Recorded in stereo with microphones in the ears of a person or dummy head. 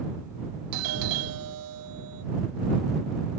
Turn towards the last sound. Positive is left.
turn(degrees=-75)  # may be behind; listen again after turning